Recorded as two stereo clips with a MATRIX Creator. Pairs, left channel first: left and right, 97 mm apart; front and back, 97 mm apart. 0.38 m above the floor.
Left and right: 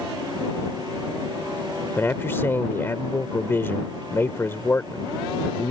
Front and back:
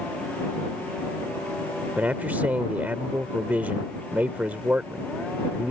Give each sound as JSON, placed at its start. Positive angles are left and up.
{"t": 2.0, "sound": "a man speaking", "azimuth_deg": 125}